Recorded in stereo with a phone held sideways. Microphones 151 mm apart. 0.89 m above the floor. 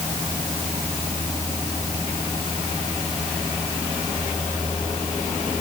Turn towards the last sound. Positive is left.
No sound to turn to.